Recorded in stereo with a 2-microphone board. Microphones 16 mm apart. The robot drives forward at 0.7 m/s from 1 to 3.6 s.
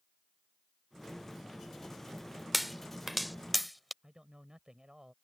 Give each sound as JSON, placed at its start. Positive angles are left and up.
{"t": 2.5, "sound": "a pop", "side_deg": -5}
{"t": 4.0, "sound": "a man speaking", "side_deg": -45}